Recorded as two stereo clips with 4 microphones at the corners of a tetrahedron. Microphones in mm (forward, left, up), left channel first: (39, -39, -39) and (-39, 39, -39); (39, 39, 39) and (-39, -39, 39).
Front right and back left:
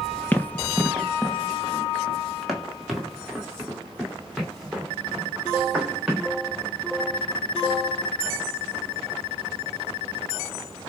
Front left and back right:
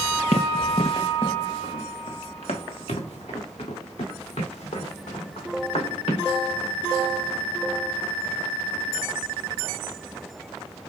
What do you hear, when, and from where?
0.3 s running footsteps: 30° left, 0.6 m; by 6.3 s 50° left, 3.5 m